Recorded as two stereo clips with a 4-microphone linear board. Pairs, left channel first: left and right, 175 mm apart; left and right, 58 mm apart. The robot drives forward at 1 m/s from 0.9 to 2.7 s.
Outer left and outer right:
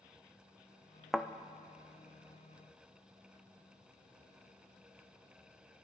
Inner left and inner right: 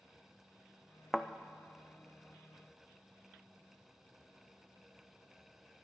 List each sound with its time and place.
1.1 s a thud: centre (ahead or behind), 0.6 m